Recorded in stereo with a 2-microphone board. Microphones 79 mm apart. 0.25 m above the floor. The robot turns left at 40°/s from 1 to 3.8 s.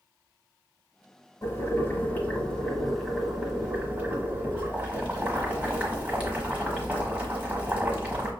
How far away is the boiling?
About 1.2 m.